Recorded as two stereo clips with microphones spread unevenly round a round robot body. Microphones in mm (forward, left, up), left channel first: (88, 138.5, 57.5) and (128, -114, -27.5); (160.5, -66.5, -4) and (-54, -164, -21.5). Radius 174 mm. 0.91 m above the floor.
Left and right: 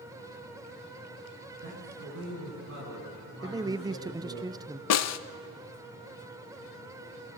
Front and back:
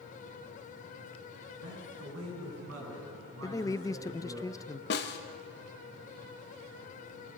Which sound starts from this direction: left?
A snare drum, at 4.9 s.